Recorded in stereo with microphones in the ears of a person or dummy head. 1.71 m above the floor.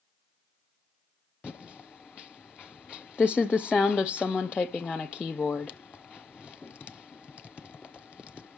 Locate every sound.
1.4 s typing on a keyboard: 15° left (ahead or behind), 0.7 m